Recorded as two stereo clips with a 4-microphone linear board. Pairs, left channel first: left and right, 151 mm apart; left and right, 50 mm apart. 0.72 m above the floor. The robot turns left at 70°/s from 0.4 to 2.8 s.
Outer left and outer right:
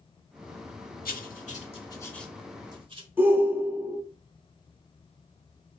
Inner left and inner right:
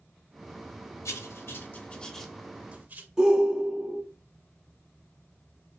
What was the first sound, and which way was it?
Writing, 75° left (ahead or behind).